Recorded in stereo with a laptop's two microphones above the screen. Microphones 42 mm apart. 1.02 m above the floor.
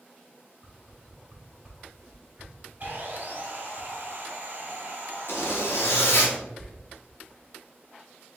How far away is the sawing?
About 1.3 m.